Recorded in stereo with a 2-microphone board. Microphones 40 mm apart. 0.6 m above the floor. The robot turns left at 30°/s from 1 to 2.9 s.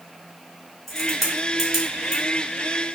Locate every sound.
0.9 s a crack: 10° left (ahead or behind), 1.2 m; by 2.2 s 25° right (ahead or behind), 1.2 m